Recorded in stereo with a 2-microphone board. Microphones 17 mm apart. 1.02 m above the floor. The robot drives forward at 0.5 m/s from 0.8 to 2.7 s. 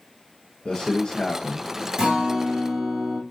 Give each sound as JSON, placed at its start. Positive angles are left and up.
{"t": 0.7, "sound": "a man speaking", "side_deg": 65, "distance_m": 0.7}
{"t": 2.0, "sound": "a guitar", "side_deg": -60, "distance_m": 3.0}